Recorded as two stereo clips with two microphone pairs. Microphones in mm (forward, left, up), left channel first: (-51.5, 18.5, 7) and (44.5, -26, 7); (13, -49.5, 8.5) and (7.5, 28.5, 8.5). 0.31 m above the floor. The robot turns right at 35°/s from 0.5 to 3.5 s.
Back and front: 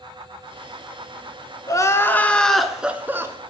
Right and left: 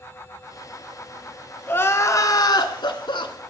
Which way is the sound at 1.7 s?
150° right.